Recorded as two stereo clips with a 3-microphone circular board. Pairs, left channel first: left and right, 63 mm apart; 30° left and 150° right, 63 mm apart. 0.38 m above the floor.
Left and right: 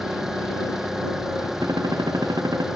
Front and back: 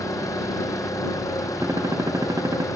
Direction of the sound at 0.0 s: 5° right.